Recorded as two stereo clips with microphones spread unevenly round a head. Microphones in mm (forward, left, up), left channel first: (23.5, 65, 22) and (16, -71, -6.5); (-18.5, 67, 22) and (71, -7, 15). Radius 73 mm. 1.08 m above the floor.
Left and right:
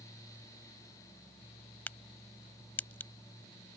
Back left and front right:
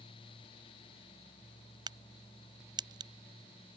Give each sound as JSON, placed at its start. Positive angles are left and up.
{"t": 1.9, "sound": "a crack", "azimuth_deg": 10}